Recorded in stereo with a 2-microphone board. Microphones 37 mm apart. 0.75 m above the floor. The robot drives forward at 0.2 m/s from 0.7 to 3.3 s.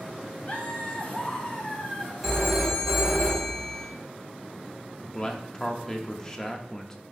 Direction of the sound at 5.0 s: 20° left (ahead or behind).